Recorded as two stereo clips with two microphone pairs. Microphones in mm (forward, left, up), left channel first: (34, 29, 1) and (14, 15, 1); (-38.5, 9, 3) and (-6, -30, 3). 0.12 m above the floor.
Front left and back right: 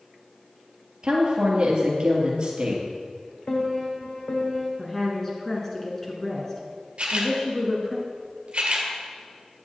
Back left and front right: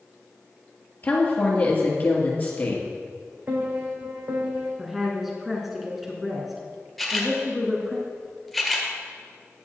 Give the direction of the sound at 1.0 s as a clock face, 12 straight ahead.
6 o'clock.